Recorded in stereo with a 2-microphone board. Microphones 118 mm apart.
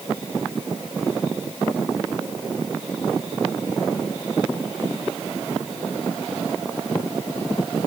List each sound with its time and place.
Only background noise.